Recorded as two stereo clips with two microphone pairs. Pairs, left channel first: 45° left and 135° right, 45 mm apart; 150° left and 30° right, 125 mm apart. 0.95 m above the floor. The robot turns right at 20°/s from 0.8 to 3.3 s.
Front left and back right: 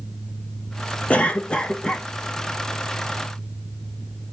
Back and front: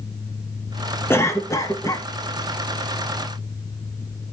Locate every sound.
1.1 s a cough: 85° left, 0.6 m; by 2.1 s 105° left, 0.6 m